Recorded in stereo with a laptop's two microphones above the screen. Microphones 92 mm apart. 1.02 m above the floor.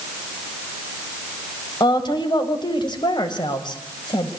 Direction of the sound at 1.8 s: 55° left (ahead or behind).